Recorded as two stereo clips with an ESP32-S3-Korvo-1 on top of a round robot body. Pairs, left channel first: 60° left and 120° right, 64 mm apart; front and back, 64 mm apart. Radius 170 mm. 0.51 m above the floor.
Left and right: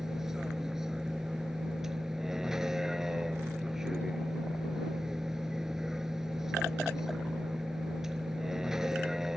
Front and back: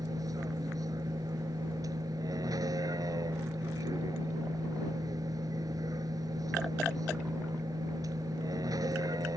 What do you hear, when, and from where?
0.0 s a vehicle: 155° left